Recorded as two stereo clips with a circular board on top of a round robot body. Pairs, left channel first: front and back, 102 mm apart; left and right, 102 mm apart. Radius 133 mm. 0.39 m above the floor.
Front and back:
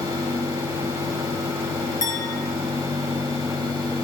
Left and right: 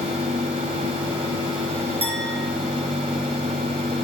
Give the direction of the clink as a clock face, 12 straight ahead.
2 o'clock.